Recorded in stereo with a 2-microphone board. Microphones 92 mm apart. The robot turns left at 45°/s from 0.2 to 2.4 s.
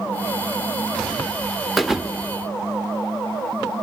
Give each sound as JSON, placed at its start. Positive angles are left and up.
{"t": 1.8, "sound": "a thud", "side_deg": 0, "distance_m": 0.9}